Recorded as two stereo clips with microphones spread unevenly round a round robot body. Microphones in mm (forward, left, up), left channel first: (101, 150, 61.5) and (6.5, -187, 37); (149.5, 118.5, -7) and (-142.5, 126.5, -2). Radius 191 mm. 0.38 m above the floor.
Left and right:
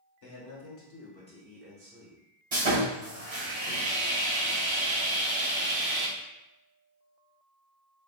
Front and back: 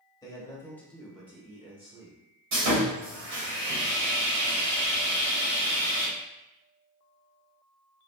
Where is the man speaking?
70° left, 1.2 m; by 2.2 s 135° right, 1.0 m.